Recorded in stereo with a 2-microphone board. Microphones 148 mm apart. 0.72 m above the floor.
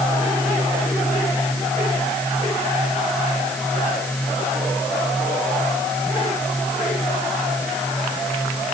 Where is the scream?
I don't hear a scream.